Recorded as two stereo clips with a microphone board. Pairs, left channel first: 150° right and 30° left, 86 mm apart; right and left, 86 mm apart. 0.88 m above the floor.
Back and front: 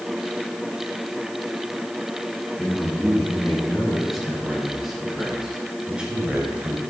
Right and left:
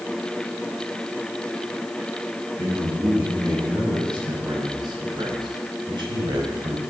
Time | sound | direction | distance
2.6 | a man speaking | 125° left | 7 m